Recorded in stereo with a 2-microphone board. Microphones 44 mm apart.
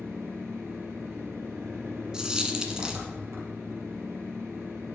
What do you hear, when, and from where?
0.0 s an engine running: 85° right, 4 m
2.1 s a dropped coin: 15° right (ahead or behind), 1.2 m